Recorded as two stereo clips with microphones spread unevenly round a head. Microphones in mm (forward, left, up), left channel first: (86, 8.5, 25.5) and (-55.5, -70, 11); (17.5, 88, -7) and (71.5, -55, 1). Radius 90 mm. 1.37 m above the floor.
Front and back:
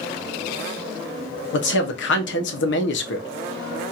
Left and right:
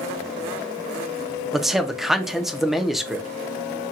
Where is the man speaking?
20° left, 0.7 m.